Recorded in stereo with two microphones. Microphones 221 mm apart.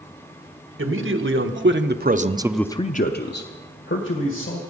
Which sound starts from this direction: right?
A man speaking, at 0.8 s.